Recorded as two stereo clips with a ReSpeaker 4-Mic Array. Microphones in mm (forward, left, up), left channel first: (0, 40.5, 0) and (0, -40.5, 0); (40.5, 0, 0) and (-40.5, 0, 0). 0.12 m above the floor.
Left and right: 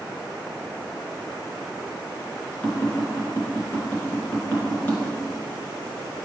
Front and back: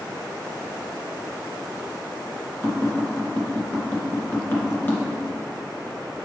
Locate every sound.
2.6 s tapping: 45° left, 2 m